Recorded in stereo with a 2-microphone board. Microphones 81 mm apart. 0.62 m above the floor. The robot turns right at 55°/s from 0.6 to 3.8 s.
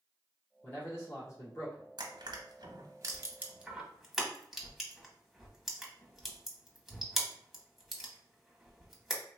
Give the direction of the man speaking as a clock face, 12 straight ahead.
11 o'clock.